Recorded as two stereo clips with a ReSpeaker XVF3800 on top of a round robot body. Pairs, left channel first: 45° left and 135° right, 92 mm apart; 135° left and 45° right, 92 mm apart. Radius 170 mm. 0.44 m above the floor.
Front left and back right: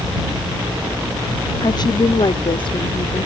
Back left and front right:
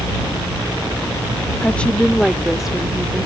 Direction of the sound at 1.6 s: 65° left.